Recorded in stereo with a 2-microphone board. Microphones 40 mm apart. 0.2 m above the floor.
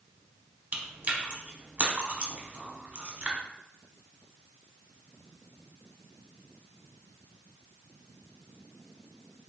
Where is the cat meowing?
I don't hear a cat meowing.